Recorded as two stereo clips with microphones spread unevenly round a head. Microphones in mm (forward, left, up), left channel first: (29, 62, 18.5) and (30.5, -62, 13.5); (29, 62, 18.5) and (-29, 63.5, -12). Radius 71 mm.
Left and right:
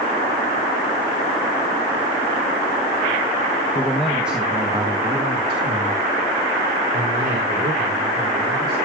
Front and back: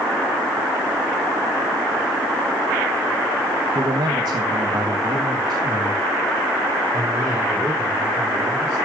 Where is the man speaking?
165° left, 1.1 m; by 8.8 s 125° right, 4.5 m.